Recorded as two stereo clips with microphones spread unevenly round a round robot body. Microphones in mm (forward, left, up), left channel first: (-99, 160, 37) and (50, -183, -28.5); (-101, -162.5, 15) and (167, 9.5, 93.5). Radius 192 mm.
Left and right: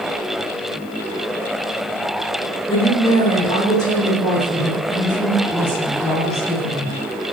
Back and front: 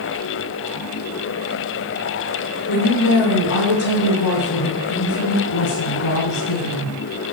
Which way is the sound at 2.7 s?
170° right.